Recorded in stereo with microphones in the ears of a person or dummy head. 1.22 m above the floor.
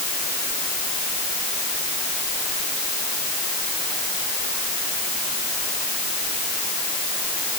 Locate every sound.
Only background noise.